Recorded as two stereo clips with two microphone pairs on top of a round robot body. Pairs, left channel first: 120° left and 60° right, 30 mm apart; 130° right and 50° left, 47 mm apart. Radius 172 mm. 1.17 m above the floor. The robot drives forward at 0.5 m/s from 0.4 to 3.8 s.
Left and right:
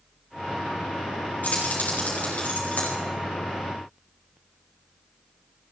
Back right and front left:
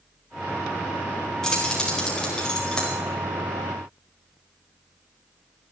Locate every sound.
1.4 s keys jangling: 155° left, 4.5 m; by 3.0 s 160° left, 5 m